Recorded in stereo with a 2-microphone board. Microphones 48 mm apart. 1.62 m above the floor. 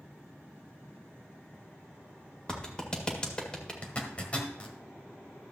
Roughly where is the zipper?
Left.